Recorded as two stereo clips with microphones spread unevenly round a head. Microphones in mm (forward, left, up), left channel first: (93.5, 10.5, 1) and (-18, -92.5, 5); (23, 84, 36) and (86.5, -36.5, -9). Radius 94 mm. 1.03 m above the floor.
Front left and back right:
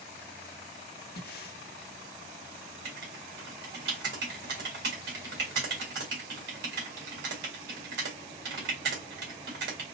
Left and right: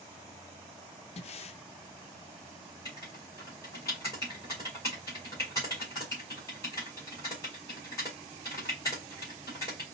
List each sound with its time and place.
1.2 s breathing: 80° left, 0.5 m
2.9 s writing: 170° right, 2.0 m